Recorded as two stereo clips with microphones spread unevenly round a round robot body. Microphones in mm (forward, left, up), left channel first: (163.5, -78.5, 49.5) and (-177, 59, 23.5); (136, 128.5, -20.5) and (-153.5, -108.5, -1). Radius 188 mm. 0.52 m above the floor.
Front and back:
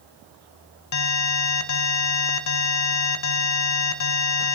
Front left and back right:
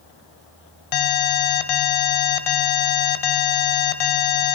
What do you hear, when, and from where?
0.9 s an alarm: 25° left, 1.4 m